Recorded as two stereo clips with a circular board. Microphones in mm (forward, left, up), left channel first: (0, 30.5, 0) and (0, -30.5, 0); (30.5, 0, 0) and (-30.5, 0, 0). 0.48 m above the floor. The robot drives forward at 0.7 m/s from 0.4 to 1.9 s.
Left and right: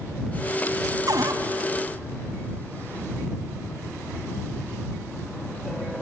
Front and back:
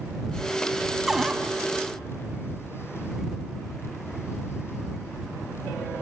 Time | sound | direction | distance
1.1 | a cupboard door | 95° right | 1.8 m